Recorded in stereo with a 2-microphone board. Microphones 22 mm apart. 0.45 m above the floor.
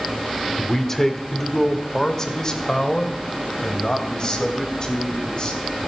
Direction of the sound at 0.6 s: 15° left (ahead or behind).